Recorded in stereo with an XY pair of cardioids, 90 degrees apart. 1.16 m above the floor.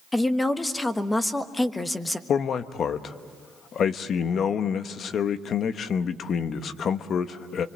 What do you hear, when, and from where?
0.1 s a woman speaking: 20° left, 1.4 m
2.3 s a man speaking: 60° left, 1.1 m